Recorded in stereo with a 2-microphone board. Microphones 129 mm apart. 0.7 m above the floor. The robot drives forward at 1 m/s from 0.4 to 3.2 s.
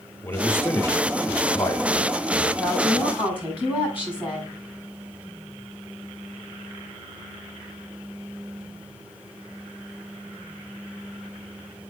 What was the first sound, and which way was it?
A man speaking, 15° left (ahead or behind).